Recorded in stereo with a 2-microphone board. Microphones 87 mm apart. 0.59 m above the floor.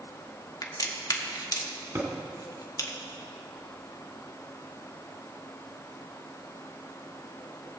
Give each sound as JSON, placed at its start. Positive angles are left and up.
{"t": 0.6, "sound": "a crack", "side_deg": 45, "distance_m": 1.3}
{"t": 1.9, "sound": "a thud", "side_deg": -35, "distance_m": 2.0}